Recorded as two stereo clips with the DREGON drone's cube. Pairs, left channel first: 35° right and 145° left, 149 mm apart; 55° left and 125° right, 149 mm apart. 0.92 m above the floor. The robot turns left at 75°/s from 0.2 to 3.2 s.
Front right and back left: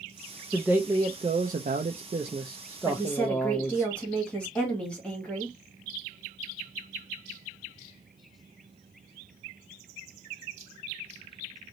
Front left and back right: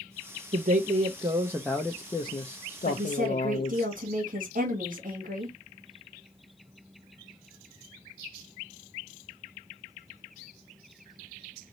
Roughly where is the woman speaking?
Right.